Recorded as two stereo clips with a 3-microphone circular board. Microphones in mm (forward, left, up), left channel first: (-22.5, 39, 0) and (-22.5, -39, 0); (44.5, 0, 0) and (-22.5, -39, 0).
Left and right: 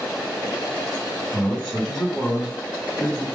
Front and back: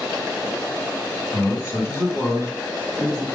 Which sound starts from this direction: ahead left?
A man speaking, at 1.3 s.